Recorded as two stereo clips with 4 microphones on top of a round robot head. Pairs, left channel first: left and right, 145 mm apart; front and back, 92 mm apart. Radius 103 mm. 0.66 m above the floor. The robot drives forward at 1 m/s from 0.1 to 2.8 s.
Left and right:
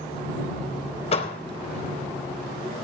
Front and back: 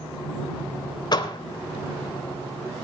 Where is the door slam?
40° left, 2.5 m; by 1.4 s 45° left, 2 m.